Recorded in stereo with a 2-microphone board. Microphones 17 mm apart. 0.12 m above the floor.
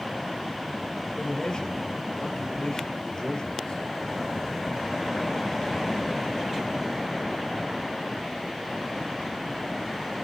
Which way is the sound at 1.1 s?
55° left (ahead or behind).